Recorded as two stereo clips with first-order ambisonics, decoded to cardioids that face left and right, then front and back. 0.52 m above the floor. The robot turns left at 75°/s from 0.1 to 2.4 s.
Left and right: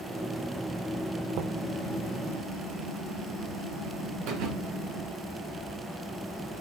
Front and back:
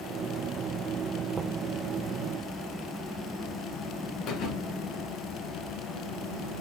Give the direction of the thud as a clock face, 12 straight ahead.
2 o'clock.